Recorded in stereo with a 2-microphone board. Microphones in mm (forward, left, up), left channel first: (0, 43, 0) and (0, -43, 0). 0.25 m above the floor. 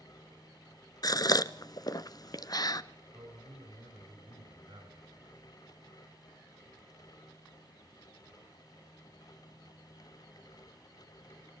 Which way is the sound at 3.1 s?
60° right (ahead or behind).